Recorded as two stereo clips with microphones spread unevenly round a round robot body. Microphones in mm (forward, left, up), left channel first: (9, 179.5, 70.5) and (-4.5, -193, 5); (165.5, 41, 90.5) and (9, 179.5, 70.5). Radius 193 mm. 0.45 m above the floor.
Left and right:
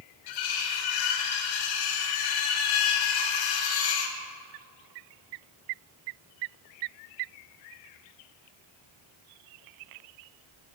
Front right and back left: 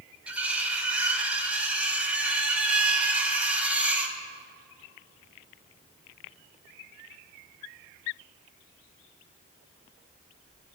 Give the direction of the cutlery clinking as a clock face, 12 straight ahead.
10 o'clock.